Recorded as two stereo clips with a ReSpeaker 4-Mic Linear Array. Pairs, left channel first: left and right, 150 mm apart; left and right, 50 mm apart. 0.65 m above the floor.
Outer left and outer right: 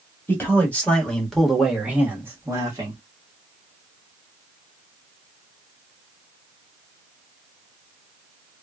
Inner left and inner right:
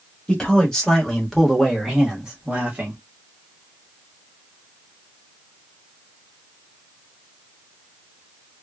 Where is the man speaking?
15° left (ahead or behind), 1.5 m; by 3.0 s 25° right (ahead or behind), 1.2 m.